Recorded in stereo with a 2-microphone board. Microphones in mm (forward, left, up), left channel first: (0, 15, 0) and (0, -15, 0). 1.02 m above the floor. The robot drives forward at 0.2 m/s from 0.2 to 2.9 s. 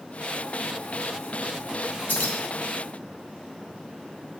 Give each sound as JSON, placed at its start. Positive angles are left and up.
{"t": 2.1, "sound": "keys jangling", "side_deg": 85, "distance_m": 1.2}